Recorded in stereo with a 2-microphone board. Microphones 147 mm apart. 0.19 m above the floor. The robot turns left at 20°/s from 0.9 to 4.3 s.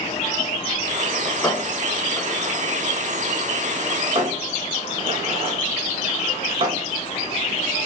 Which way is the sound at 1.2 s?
20° left (ahead or behind).